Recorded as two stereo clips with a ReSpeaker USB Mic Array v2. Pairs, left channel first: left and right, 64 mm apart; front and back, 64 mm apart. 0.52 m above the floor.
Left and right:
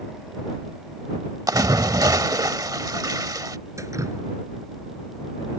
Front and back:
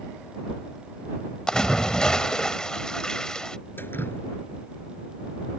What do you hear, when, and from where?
1.5 s a splash: 75° right
3.8 s dripping: 55° right